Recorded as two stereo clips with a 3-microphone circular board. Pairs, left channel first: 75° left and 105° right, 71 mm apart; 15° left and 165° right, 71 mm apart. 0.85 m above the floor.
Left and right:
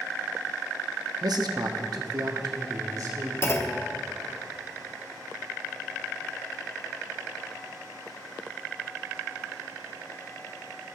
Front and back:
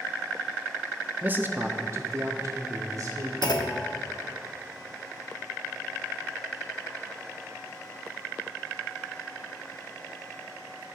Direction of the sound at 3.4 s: 25° left.